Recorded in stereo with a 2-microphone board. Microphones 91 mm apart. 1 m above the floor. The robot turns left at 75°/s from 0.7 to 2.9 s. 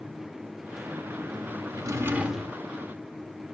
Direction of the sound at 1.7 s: 130° right.